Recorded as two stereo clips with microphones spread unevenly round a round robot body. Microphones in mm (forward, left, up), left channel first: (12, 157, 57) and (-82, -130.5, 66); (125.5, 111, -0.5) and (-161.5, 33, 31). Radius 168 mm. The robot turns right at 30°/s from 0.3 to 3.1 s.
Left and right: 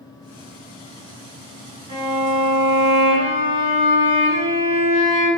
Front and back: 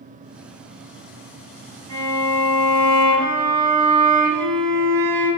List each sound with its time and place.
1.9 s a violin: 170° right, 1.9 m; by 5.3 s 130° right, 1.9 m